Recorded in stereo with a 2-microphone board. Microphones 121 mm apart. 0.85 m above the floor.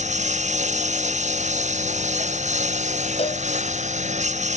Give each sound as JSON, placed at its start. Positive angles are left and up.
{"t": 0.0, "sound": "a lawn mower", "side_deg": -85}
{"t": 3.2, "sound": "a cowbell", "side_deg": 55}